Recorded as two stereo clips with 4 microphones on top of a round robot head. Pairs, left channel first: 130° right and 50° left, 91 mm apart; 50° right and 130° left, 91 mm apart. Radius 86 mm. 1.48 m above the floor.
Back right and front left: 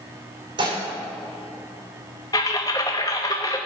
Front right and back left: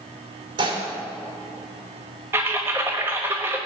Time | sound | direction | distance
0.6 | dishes clattering | 90° left | 3.5 m
2.3 | typing on a keyboard | 170° right | 0.8 m